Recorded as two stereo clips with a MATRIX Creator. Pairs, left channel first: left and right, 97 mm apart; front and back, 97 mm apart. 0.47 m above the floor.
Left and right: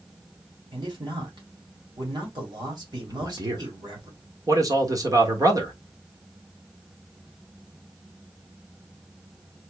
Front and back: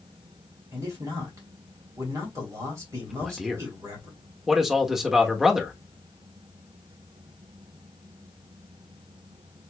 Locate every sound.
0.7 s a man speaking: 125° right, 2.5 m
3.1 s a man speaking: 100° right, 1.1 m